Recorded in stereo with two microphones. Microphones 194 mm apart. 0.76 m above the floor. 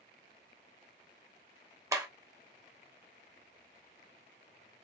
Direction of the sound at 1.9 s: 15° right (ahead or behind).